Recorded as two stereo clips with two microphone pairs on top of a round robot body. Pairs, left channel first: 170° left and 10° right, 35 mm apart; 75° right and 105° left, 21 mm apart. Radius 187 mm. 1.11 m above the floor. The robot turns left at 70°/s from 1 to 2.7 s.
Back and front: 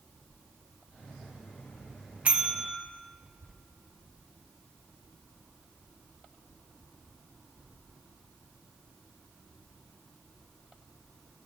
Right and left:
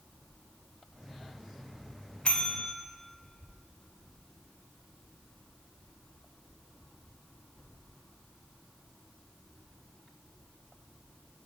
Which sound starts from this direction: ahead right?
A bell, at 2.2 s.